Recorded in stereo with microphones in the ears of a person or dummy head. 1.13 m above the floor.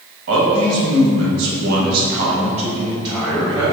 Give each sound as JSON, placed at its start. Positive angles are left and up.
{"t": 0.3, "sound": "a man speaking", "side_deg": -70, "distance_m": 1.2}